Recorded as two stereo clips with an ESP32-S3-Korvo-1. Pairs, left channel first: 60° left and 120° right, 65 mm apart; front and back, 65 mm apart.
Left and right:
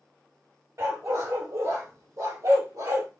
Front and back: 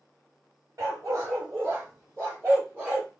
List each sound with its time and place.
0.8 s a dog barking: 150° right, 1.6 m; by 3.1 s 115° right, 2.5 m